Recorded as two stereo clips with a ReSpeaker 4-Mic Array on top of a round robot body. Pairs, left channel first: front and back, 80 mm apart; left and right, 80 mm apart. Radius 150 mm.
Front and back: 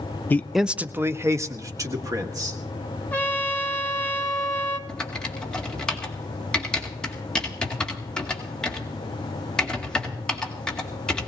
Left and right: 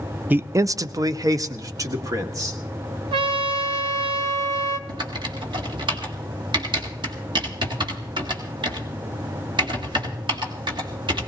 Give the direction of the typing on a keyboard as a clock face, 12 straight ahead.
3 o'clock.